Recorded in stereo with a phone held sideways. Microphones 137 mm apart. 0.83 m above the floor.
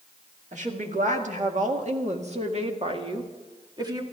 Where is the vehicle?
I don't hear a vehicle.